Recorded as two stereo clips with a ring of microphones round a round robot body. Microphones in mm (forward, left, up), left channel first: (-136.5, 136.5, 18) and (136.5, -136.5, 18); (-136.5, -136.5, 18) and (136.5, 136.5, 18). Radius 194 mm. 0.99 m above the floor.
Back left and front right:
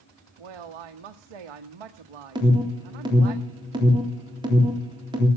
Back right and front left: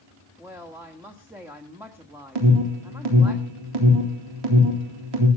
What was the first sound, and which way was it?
A woman speaking, 40° right.